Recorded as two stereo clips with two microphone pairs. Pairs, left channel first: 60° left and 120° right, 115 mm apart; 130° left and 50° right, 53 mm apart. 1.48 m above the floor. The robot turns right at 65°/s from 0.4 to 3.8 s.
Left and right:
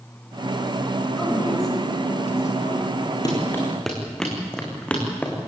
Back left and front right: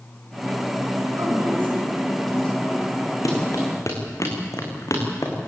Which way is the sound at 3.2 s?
115° left.